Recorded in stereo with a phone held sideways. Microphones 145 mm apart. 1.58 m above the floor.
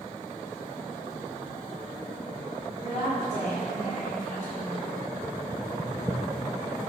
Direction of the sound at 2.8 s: 55° left (ahead or behind).